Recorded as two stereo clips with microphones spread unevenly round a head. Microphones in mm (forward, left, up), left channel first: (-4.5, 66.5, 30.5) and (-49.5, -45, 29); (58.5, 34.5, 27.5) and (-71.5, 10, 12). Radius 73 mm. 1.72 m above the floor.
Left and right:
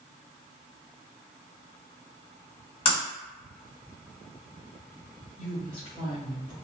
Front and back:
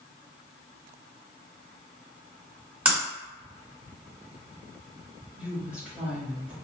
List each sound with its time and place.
2.9 s breaking glass: 110° left, 1.7 m
5.4 s a woman speaking: 110° left, 1.6 m